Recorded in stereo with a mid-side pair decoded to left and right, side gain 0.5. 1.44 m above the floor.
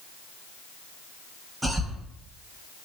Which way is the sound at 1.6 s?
10° right.